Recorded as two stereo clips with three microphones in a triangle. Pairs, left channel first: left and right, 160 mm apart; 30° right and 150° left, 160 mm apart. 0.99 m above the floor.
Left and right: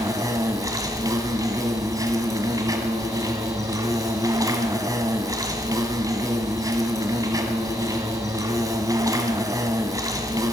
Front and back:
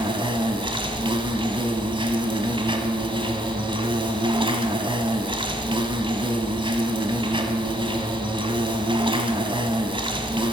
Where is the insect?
155° right, 1.5 m.